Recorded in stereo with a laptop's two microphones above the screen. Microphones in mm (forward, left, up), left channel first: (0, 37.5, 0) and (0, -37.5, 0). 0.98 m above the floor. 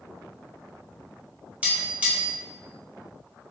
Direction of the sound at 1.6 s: 20° right (ahead or behind).